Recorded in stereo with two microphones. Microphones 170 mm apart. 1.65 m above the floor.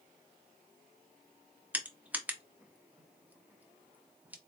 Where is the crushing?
10° right (ahead or behind), 0.6 m.